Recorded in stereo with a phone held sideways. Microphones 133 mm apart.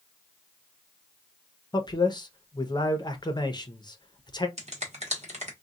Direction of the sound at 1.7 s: 30° left (ahead or behind).